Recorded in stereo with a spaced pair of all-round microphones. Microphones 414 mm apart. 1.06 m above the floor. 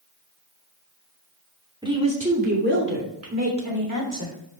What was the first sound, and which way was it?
A woman speaking, 10° right (ahead or behind).